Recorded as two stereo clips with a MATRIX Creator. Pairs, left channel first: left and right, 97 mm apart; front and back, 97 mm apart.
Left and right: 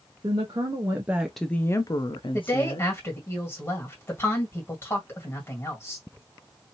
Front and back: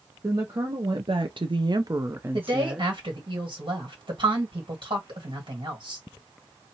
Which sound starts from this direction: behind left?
A woman speaking, at 2.3 s.